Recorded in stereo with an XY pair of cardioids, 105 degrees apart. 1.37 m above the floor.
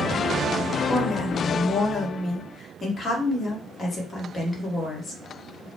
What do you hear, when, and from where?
0.9 s a woman speaking: 35° left, 1.2 m